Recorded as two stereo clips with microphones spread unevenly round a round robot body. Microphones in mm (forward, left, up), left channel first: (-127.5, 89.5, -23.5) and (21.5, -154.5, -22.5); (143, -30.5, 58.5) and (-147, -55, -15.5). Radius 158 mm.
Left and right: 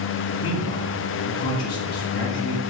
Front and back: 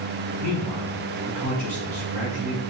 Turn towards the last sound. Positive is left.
turn(degrees=75)